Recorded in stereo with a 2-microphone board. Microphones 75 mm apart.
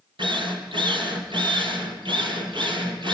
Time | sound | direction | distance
0.2 | a drill | 80° right | 3.5 m